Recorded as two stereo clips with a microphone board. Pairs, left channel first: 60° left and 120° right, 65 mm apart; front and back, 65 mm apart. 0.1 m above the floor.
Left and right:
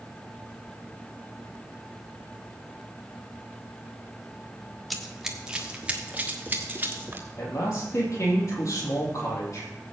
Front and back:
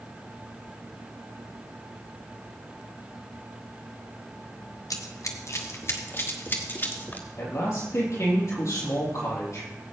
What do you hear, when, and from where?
4.9 s running footsteps: 30° right, 1.6 m; by 7.3 s 60° right, 3 m
7.4 s a man speaking: 30° left, 3.5 m